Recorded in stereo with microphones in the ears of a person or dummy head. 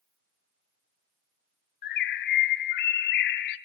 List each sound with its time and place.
1.8 s a bird: 60° left (ahead or behind), 0.5 m